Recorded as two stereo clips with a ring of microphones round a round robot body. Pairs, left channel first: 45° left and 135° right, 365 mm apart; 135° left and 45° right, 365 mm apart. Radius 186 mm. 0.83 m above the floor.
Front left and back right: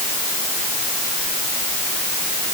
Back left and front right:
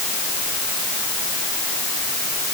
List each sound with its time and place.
Only background noise.